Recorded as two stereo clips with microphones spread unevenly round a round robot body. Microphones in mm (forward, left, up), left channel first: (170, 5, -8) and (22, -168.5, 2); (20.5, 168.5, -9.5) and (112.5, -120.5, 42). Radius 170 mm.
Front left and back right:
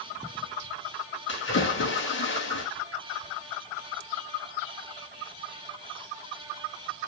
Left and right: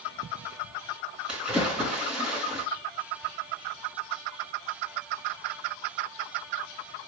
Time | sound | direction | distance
1.3 | a splash | 15° left | 5.5 m